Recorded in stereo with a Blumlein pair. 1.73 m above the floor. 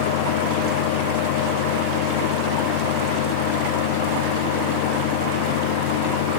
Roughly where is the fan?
Ahead left.